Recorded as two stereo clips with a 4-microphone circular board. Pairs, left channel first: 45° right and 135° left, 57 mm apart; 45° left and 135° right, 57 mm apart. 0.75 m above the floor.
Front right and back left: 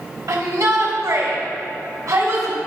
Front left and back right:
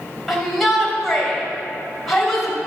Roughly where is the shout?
Behind left.